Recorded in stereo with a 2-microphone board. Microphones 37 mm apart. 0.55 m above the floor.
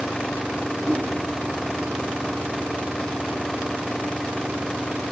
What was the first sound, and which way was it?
A whoosh, 20° right (ahead or behind).